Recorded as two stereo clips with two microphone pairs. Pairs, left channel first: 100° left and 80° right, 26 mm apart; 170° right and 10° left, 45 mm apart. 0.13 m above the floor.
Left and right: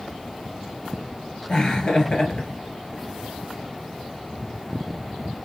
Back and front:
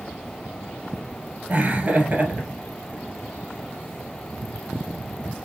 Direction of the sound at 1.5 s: 55° left.